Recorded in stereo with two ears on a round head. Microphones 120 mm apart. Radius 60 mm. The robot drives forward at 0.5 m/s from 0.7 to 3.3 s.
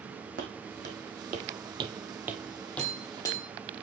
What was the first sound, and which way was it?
Footsteps, 70° right (ahead or behind).